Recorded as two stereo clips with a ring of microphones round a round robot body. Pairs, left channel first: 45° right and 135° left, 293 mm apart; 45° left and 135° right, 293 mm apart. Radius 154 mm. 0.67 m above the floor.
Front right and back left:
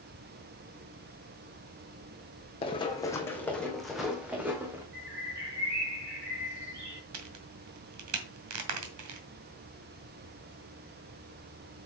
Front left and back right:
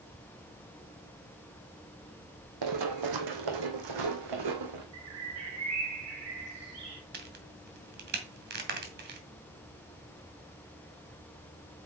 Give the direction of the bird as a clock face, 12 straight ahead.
6 o'clock.